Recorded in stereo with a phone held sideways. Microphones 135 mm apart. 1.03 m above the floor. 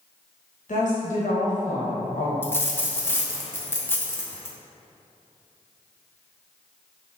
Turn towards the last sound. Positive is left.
turn(degrees=15)  # may be behind; listen again after turning